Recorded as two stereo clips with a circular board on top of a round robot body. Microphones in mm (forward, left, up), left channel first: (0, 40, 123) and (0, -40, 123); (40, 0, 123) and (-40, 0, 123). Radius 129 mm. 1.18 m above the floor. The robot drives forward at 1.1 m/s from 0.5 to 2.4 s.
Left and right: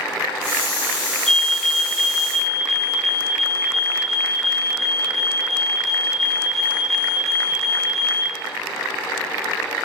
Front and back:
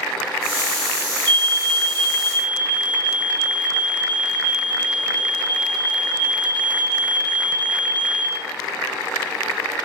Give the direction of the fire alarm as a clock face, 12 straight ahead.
6 o'clock.